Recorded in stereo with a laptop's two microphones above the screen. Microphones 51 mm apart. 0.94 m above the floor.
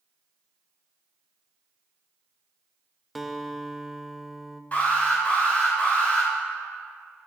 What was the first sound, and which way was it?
A guitar, centre (ahead or behind).